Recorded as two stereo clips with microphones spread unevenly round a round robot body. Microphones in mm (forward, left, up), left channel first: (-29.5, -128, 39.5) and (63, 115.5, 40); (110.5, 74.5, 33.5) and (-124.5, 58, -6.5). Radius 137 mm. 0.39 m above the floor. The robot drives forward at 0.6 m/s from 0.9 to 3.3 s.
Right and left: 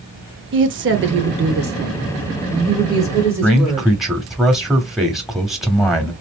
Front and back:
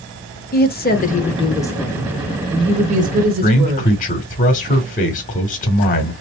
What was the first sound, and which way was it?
A woman speaking, 50° left.